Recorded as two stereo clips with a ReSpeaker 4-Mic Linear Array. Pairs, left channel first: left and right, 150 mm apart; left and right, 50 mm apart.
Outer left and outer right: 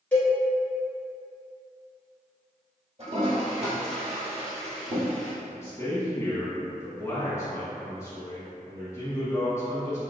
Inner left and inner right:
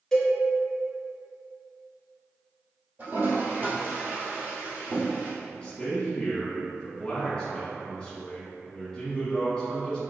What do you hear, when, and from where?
0.1 s a cowbell: 10° left (ahead or behind), 1.3 m
3.0 s a toilet flushing: 45° right (ahead or behind), 1.9 m
5.4 s a man speaking: 20° left (ahead or behind), 1.1 m